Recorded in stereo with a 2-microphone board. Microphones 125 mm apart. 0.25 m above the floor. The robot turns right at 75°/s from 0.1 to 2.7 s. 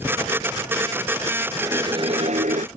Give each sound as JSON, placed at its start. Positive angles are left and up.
{"t": 1.6, "sound": "a whoosh", "azimuth_deg": -165}